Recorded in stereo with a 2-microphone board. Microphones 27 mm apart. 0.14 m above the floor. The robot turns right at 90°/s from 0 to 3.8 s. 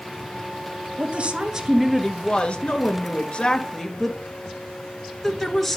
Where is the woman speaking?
80° right, 2.5 m; by 5.8 s 175° left, 2.5 m.